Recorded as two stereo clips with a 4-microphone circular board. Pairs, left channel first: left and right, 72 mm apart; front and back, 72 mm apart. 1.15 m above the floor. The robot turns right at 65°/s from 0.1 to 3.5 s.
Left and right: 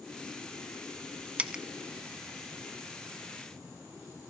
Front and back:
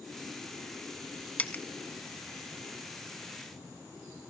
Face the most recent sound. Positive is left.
turn(degrees=100)